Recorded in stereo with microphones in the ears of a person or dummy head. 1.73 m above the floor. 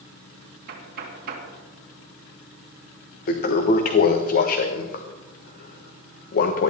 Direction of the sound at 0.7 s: 50° right (ahead or behind).